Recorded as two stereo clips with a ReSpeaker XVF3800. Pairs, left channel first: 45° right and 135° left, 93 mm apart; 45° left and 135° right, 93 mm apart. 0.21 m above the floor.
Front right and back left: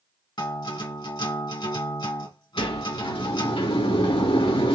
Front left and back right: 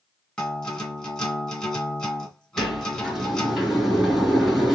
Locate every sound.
0.4 s a guitar: 35° right, 2 m
2.6 s a sliding door: 45° right, 2 m